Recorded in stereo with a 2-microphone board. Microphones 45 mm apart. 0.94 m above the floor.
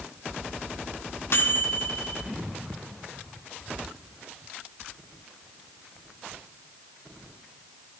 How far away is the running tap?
No running tap in this recording.